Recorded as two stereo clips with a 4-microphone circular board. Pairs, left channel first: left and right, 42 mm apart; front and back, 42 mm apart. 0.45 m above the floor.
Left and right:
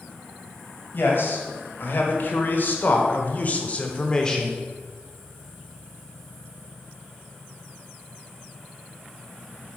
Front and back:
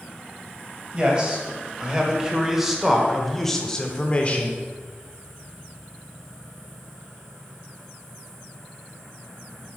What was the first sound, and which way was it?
A man speaking, 110° left.